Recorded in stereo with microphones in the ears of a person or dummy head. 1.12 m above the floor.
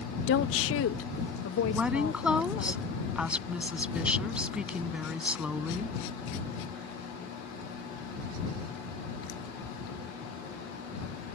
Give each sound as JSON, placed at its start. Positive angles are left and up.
{"t": 0.3, "sound": "a woman speaking", "side_deg": 60}
{"t": 1.7, "sound": "a woman speaking", "side_deg": -5}